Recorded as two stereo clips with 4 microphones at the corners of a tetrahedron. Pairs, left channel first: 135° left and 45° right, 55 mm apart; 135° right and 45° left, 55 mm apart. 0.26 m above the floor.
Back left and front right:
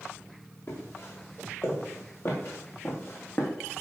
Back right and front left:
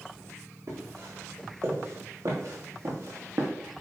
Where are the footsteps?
90° left, 3.5 m; by 3.5 s 80° left, 2 m.